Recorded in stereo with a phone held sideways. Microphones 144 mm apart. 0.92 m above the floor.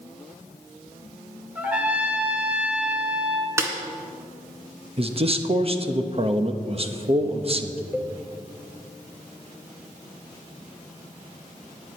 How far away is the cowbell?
About 0.9 m.